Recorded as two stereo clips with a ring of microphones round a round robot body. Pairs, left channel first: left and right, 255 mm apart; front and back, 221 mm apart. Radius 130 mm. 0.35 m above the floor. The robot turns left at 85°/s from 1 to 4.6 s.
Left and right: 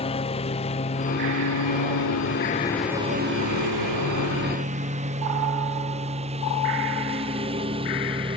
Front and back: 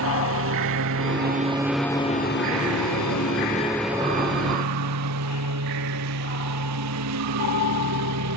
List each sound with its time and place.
0.0 s a lawn mower: 160° left; by 8.4 s 160° right